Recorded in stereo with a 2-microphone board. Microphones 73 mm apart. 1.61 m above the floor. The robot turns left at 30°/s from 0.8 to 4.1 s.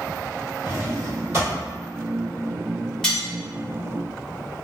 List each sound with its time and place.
0.7 s a drawer: 40° right (ahead or behind), 1.6 m; by 1.6 s 30° right (ahead or behind), 1.6 m
3.0 s cutlery clinking: 10° left (ahead or behind), 1.3 m; by 3.3 s 15° left (ahead or behind), 1.3 m